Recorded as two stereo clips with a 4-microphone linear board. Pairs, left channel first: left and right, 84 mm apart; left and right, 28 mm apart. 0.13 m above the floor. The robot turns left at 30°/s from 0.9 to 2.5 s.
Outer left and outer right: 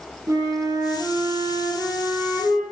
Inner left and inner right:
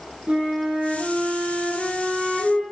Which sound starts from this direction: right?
A flute, at 0.3 s.